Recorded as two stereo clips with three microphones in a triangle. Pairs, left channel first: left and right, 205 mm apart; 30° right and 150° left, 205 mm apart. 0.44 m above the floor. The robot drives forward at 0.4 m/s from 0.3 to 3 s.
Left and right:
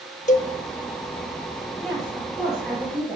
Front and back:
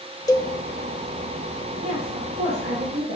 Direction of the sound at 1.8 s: Straight behind.